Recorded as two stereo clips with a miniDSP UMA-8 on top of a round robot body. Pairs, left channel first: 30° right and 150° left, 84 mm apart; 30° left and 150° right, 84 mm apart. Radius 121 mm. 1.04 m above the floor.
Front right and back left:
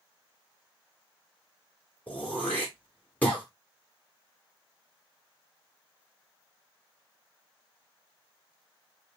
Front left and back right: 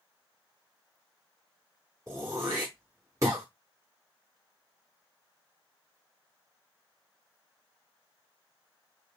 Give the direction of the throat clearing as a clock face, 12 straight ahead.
3 o'clock.